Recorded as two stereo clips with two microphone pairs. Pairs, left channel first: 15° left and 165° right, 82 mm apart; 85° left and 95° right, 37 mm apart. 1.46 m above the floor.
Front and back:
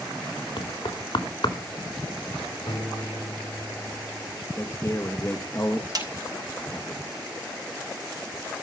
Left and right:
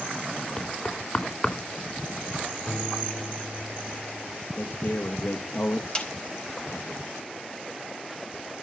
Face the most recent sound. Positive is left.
turn(degrees=155)